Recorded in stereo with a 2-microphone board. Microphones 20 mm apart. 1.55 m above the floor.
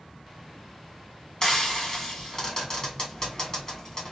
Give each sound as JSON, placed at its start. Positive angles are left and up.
{"t": 1.4, "sound": "frying", "side_deg": 30, "distance_m": 1.2}